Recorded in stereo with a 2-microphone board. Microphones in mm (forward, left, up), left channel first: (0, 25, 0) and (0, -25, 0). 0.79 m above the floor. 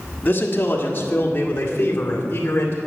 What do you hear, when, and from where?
0.2 s a man speaking: 40° left (ahead or behind), 1.4 m